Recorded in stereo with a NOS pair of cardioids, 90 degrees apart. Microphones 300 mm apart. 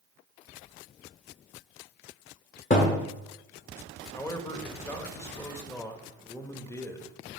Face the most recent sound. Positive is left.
turn(degrees=10)